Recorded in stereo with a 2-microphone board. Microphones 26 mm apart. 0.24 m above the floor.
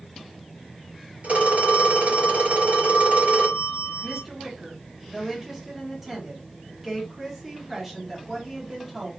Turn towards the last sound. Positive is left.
turn(degrees=-15)  # may be behind; listen again after turning